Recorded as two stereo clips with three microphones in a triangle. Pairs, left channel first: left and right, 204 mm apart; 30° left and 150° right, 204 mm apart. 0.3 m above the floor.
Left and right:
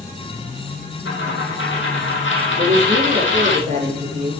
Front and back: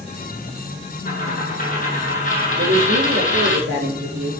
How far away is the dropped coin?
About 3 m.